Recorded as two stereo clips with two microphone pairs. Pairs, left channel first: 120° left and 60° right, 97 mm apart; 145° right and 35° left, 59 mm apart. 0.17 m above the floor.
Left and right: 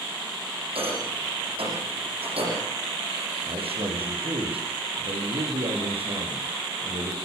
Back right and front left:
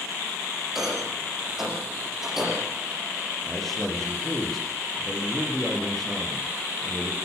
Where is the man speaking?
60° right, 9 m.